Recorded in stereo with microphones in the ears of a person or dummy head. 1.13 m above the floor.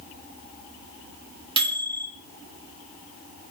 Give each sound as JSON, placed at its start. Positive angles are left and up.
{"t": 1.6, "sound": "a microwave", "side_deg": -25, "distance_m": 0.7}